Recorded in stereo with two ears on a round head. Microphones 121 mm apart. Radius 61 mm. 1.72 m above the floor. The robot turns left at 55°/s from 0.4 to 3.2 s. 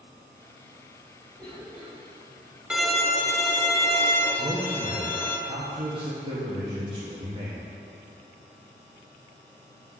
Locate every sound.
1.4 s a cough: 15° left (ahead or behind), 3 m; by 2.6 s 50° right (ahead or behind), 3 m
2.7 s a violin: 5° right (ahead or behind), 0.8 m; by 5.4 s 20° left (ahead or behind), 0.8 m
4.4 s a man speaking: 35° right (ahead or behind), 1.3 m